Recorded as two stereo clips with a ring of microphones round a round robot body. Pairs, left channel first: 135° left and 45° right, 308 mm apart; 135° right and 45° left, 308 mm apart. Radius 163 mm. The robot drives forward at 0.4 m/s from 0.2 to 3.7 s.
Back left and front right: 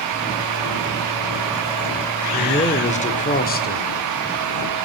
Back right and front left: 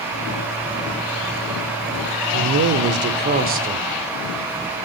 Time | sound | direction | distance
2.3 | a man speaking | 65° left | 1.8 m